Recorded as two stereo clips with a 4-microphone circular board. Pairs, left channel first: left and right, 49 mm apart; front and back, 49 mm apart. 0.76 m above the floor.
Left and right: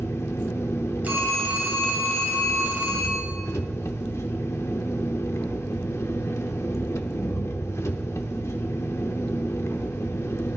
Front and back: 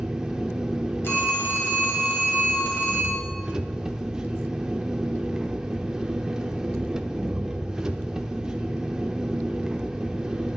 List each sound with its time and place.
0.0 s an engine running: 105° left, 0.7 m
1.0 s a phone ringing: 35° right, 2.5 m